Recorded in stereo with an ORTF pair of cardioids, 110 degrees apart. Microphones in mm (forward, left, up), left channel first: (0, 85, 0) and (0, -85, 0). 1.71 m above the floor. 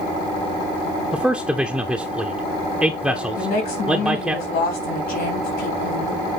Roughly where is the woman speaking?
Left.